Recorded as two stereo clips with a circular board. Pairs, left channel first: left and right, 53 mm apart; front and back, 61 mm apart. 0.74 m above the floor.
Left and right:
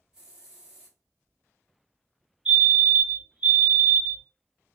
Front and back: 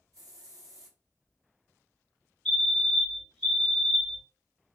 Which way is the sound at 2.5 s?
65° right.